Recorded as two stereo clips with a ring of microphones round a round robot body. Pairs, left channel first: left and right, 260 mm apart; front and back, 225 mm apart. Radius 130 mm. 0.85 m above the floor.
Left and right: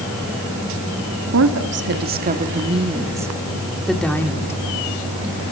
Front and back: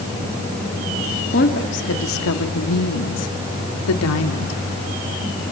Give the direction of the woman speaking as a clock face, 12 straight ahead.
2 o'clock.